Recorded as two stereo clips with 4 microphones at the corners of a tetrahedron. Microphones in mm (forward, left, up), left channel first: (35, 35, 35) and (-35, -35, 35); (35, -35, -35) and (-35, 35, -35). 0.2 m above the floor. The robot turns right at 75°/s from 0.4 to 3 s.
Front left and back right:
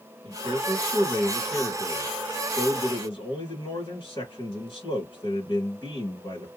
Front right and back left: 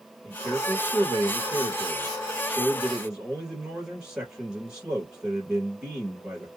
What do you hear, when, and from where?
0.2 s a man speaking: 125° right, 1.7 m; by 6.5 s 70° left, 1.7 m